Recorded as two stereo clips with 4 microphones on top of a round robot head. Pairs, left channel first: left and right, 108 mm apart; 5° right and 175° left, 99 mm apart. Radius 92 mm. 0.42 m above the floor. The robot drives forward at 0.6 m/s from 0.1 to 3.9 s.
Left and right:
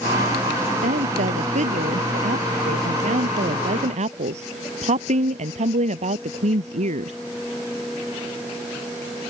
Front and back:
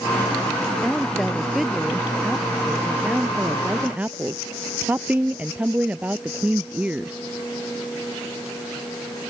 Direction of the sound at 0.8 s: 95° right.